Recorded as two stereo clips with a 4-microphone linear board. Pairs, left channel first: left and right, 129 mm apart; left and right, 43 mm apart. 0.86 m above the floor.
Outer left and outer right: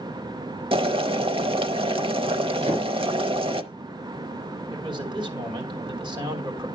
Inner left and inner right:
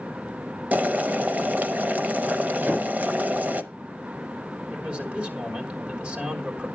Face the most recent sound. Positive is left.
turn(degrees=-35)  # may be behind; listen again after turning